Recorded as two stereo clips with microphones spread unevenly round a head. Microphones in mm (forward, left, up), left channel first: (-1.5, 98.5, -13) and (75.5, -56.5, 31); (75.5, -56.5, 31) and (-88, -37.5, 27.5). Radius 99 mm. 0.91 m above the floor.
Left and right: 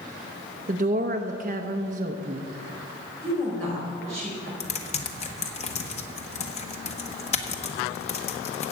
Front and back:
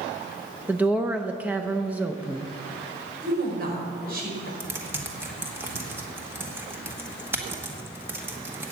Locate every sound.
0.7 s a woman speaking: 110° right, 0.7 m
3.2 s a woman speaking: 160° right, 4.5 m
4.6 s typing on a keyboard: 100° left, 1.2 m